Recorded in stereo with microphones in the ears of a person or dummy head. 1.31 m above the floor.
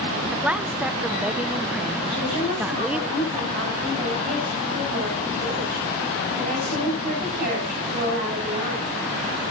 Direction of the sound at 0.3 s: 5° right (ahead or behind).